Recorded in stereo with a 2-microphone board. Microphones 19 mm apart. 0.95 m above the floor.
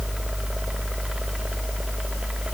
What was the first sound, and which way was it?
Only background noise.